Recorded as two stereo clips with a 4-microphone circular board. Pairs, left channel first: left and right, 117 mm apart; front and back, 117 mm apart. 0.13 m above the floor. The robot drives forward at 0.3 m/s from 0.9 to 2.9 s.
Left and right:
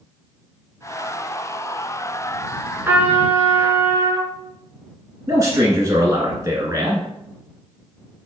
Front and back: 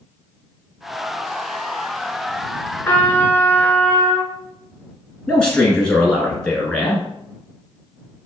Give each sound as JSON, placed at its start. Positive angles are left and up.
{"t": 2.8, "sound": "a trumpet", "azimuth_deg": -45, "distance_m": 0.8}
{"t": 5.3, "sound": "a man speaking", "azimuth_deg": -75, "distance_m": 1.2}